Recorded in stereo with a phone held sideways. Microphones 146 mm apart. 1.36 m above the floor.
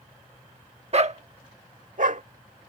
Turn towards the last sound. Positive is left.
turn(degrees=-65)  # may be behind; listen again after turning